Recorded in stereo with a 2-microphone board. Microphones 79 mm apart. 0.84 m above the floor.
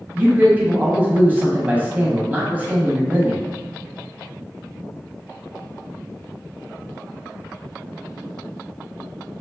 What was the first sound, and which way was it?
A man speaking, 20° right (ahead or behind).